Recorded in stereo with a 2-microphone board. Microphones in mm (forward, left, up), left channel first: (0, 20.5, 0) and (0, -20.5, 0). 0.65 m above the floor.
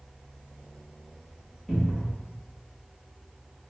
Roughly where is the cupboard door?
Centre.